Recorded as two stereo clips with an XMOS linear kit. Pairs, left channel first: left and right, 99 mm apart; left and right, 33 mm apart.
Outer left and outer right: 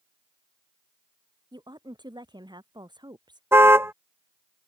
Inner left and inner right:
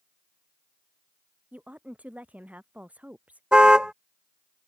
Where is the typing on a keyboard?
No typing on a keyboard in this recording.